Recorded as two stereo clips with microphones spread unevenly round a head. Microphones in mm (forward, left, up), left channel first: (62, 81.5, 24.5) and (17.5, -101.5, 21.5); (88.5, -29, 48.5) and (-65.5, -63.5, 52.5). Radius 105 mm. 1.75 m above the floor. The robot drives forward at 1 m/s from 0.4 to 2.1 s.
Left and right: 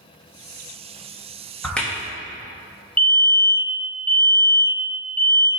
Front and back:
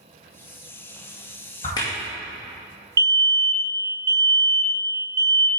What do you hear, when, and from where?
1.6 s a crack: 5° left, 1.2 m
3.0 s a fire alarm: 155° left, 0.9 m